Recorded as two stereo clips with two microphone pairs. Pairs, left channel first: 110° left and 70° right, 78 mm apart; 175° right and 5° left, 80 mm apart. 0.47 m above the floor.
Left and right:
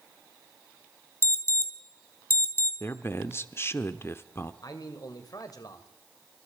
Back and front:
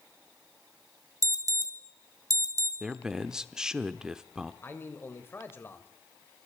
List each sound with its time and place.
1.2 s an alarm: 50° left, 2.5 m
2.8 s a man speaking: 80° left, 1.1 m
4.6 s a man speaking: 130° left, 2.5 m